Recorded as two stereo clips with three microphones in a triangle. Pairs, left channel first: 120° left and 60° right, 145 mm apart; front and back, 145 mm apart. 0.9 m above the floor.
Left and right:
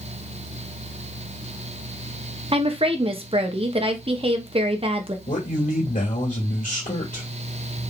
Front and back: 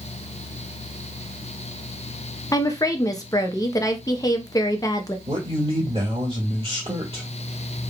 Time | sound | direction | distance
2.5 | a woman speaking | 50° right | 0.7 m
5.3 | a man speaking | 130° left | 1.7 m